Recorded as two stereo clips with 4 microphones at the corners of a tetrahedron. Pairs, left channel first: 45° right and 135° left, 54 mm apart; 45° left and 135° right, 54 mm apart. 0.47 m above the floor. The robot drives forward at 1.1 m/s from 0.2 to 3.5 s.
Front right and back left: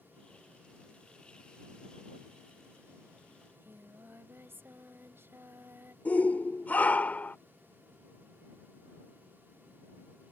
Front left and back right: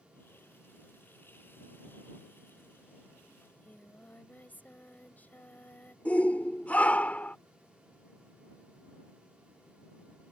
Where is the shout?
5° right.